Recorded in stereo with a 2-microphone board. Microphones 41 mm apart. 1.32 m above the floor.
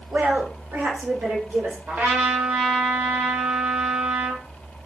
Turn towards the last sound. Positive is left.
turn(degrees=-55)  # may be behind; listen again after turning